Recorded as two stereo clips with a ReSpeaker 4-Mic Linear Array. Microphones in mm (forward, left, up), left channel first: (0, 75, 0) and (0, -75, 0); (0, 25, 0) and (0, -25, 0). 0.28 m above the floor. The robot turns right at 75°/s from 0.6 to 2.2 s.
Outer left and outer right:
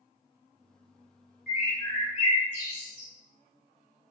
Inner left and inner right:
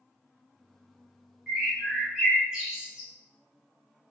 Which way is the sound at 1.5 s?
5° left (ahead or behind).